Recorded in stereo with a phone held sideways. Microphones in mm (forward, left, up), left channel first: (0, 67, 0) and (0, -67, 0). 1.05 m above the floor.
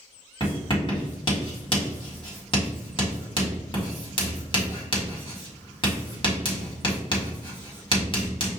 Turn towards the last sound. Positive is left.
turn(degrees=40)  # may be behind; listen again after turning